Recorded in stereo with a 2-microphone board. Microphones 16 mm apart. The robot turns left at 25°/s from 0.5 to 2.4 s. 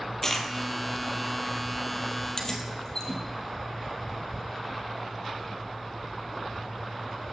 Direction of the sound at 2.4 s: 30° left (ahead or behind).